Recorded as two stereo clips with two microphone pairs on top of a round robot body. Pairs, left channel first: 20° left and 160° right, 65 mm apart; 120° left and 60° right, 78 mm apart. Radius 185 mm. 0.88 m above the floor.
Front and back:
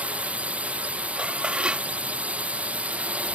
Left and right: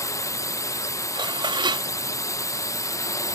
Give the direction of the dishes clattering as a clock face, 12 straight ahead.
3 o'clock.